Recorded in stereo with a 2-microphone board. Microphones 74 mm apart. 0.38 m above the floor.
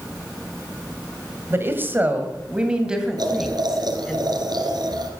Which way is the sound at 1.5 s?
35° right (ahead or behind).